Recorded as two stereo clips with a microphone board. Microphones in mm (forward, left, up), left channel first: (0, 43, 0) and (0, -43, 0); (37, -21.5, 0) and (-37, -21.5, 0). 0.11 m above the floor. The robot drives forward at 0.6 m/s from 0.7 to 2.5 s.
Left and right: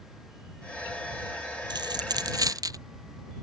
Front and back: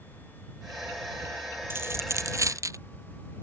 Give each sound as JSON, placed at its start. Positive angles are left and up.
{"t": 1.7, "sound": "a dropped coin", "azimuth_deg": -120}